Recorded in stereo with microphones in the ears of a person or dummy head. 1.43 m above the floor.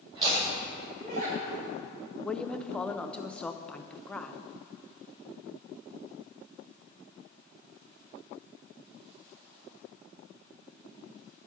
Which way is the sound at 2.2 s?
5° left (ahead or behind).